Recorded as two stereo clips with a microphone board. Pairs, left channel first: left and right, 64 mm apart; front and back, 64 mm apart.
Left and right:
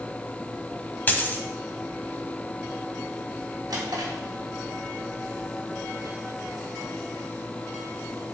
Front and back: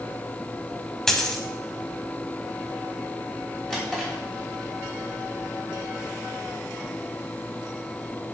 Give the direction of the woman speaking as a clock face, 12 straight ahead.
I don't hear a woman speaking.